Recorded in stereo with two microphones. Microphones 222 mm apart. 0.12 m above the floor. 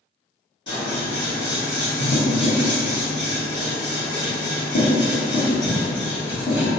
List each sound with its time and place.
0.7 s scissors: 55° left (ahead or behind), 1.7 m